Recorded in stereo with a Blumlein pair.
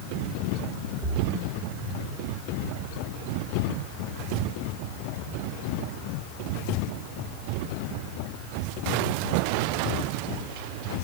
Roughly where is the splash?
Ahead.